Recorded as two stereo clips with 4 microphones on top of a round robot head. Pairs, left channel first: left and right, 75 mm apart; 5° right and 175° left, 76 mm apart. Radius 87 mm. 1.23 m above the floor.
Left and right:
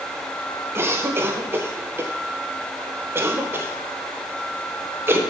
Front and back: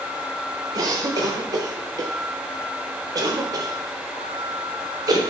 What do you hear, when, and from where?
0.8 s a cough: 145° right, 1.3 m